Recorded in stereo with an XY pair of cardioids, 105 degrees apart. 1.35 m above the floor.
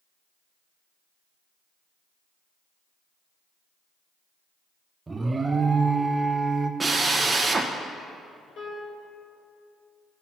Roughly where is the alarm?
Ahead right.